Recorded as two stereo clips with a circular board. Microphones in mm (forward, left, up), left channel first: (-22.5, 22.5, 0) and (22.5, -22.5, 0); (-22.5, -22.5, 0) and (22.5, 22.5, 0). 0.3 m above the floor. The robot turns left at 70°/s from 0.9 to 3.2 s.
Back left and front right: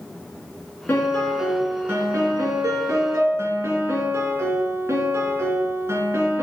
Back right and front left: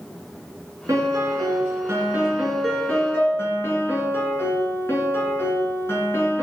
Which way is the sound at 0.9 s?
75° left.